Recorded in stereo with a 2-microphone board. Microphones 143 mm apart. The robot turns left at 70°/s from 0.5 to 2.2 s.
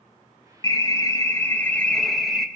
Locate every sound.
0.6 s an alarm: 20° left (ahead or behind), 1.3 m; by 2.5 s 5° right (ahead or behind), 1.3 m